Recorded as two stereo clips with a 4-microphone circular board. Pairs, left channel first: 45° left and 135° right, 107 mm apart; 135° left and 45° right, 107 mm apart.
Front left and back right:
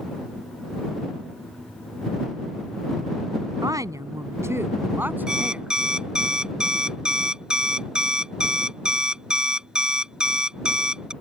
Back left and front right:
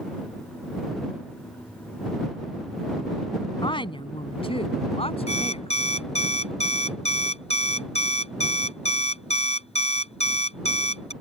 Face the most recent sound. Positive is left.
turn(degrees=145)